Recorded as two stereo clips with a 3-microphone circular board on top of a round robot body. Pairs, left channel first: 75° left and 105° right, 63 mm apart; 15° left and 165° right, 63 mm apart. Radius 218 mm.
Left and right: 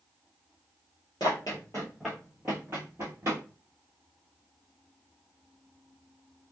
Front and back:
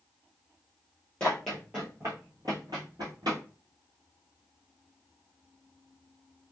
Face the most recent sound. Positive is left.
turn(degrees=-150)